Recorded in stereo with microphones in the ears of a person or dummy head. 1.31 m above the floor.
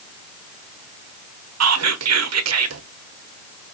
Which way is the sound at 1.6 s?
80° right.